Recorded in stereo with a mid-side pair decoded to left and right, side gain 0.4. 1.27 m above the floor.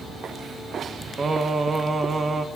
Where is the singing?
35° right, 1.4 m.